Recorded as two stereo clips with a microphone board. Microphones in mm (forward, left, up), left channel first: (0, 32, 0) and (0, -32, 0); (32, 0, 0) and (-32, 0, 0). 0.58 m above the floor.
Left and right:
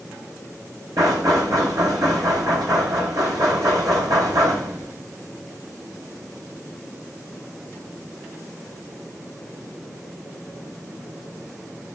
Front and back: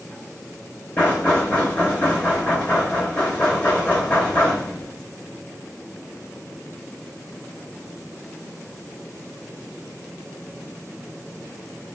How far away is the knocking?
About 2 m.